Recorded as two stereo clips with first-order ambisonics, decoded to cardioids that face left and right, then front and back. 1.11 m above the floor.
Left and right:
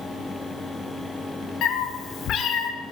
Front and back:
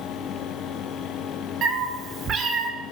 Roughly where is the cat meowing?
Behind left.